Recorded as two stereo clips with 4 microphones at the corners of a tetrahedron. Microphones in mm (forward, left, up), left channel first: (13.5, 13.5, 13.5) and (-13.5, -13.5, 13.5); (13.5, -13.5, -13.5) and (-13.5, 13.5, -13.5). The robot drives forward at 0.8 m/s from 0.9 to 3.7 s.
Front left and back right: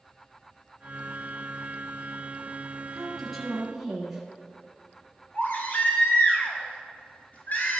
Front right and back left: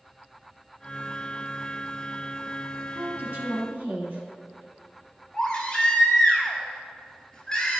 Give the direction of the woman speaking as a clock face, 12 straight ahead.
8 o'clock.